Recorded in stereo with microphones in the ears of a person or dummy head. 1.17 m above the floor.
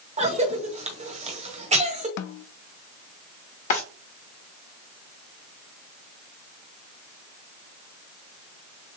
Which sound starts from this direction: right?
A cough, at 0.2 s.